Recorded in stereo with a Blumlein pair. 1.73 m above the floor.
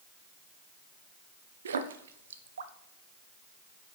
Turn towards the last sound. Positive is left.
turn(degrees=-65)